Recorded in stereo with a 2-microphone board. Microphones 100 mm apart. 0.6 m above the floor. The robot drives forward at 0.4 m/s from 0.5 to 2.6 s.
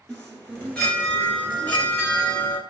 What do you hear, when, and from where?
0.1 s a chime: 10° left (ahead or behind), 1.8 m; by 2.6 s 20° left (ahead or behind), 1.0 m